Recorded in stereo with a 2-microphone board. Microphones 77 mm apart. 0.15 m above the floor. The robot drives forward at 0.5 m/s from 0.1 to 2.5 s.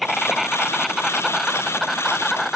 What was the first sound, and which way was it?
An insect, centre (ahead or behind).